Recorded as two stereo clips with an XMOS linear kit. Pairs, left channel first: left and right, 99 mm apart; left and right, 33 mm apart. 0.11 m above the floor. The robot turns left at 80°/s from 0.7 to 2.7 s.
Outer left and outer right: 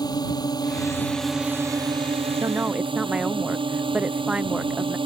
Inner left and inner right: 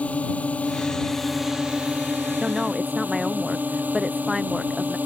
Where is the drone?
45° left; by 5.1 s 115° right.